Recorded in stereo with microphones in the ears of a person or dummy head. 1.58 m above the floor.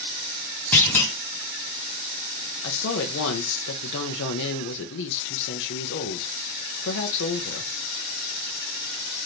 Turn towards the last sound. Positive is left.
turn(degrees=65)  # may be behind; listen again after turning